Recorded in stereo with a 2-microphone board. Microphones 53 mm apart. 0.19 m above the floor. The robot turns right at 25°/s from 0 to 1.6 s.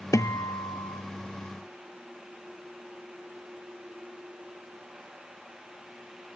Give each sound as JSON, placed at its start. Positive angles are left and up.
{"t": 0.1, "sound": "a guitar", "side_deg": 85, "distance_m": 0.8}